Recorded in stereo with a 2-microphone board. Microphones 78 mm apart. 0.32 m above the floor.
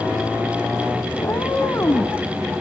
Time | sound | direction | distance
1.2 | a cat meowing | 40° left (ahead or behind) | 1.3 m